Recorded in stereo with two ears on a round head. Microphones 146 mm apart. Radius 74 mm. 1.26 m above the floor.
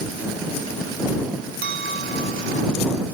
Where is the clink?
75° right (ahead or behind).